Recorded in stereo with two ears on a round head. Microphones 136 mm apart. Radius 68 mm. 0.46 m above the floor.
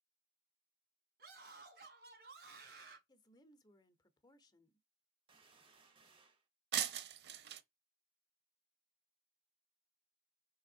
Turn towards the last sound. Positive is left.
turn(degrees=-75)  # may be behind; listen again after turning